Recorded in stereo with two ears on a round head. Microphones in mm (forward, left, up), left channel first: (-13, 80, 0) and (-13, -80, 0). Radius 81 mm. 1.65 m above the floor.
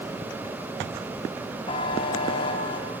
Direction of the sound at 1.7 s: 30° left (ahead or behind).